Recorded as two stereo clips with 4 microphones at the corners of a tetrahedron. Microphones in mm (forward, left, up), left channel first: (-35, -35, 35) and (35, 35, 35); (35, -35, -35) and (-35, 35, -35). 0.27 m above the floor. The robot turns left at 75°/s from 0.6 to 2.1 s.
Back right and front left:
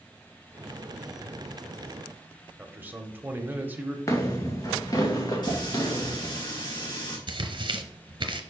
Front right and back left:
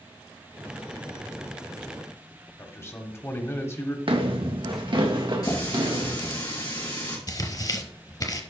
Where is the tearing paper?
5° left, 0.9 m.